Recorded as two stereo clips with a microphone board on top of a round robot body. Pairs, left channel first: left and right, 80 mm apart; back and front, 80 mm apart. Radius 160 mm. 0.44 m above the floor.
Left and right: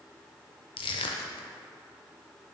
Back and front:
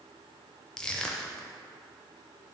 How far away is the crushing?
About 0.5 m.